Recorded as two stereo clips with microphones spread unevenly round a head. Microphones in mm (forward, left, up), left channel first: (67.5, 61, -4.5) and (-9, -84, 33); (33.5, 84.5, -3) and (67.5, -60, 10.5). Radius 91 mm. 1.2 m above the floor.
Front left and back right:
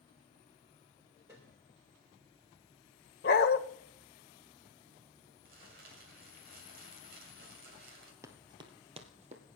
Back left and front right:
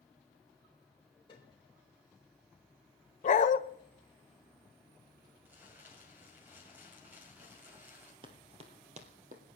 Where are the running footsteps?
80° right, 1.4 m; by 9.4 s 100° right, 2 m.